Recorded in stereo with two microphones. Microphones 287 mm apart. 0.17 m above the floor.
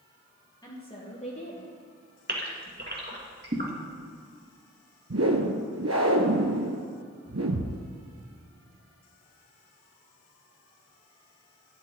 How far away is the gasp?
About 2 m.